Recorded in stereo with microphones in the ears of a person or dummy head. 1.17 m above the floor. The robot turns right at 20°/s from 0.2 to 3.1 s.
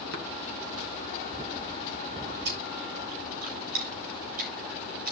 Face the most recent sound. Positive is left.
turn(degrees=-50)  # may be behind; listen again after turning